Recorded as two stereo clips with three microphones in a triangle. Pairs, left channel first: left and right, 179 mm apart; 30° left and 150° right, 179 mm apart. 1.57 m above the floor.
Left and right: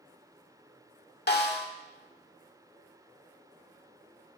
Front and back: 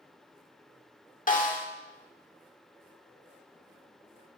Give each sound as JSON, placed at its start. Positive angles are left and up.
{"t": 1.3, "sound": "a snare drum", "azimuth_deg": 70, "distance_m": 1.6}